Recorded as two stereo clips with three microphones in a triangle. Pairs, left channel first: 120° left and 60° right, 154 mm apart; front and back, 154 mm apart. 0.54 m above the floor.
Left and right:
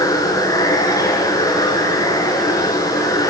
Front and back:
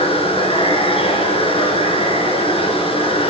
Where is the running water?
50° left, 4 m.